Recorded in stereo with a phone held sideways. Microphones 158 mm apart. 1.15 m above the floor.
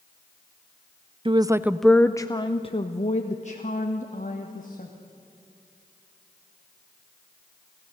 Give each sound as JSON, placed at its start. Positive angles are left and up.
{"t": 1.2, "sound": "a woman speaking", "side_deg": -35, "distance_m": 0.5}